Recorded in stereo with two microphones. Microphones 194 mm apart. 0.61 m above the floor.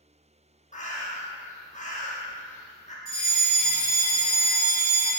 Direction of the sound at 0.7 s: 40° left (ahead or behind).